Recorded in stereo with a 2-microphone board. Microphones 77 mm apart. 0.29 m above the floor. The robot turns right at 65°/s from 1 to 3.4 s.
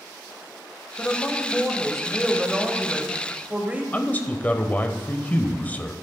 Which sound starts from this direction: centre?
A woman speaking, at 1.0 s.